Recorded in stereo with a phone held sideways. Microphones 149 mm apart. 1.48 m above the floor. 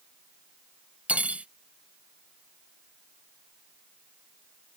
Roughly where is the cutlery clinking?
Centre.